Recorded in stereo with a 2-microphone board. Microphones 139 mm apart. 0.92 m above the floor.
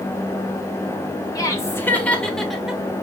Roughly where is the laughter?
Left.